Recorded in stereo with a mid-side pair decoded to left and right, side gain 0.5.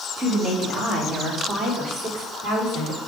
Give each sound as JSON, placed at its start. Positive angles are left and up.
{"t": 0.2, "sound": "a woman speaking", "azimuth_deg": -40, "distance_m": 3.5}